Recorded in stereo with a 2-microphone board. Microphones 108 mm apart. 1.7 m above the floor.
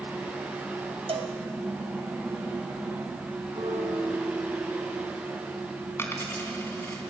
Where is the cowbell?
60° right (ahead or behind), 2 m.